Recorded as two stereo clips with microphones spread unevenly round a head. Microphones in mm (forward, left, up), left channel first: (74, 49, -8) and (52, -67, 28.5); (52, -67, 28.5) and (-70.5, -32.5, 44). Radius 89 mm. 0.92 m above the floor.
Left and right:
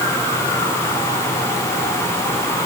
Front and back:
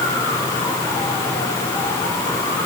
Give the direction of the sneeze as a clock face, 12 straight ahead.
No sneeze in this recording.